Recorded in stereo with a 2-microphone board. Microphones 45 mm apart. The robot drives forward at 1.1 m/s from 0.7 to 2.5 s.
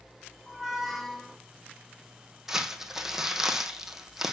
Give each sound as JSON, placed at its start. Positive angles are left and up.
{"t": 0.5, "sound": "a squeak", "side_deg": 5, "distance_m": 1.4}
{"t": 2.5, "sound": "crumpling", "side_deg": -5, "distance_m": 1.6}